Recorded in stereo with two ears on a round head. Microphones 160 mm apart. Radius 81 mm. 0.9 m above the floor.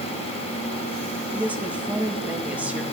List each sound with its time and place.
1.3 s a woman speaking: 10° right (ahead or behind), 1.7 m